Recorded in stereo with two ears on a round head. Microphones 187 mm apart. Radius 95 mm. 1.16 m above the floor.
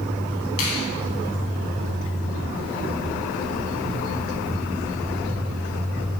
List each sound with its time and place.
0.6 s a finger snap: 85° left, 9.5 m